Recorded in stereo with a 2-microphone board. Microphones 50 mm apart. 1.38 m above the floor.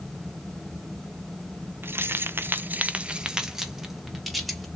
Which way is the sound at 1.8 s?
50° right (ahead or behind).